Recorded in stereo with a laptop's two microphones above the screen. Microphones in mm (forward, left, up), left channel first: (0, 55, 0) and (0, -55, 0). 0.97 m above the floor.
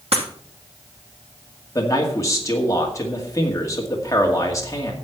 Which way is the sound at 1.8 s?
30° left (ahead or behind).